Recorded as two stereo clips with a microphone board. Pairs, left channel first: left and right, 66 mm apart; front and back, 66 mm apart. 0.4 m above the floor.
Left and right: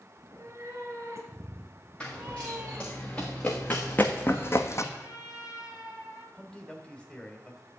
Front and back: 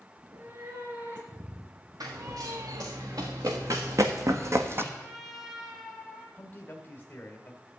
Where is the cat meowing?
135° right, 3 m; by 2.9 s 155° right, 0.6 m.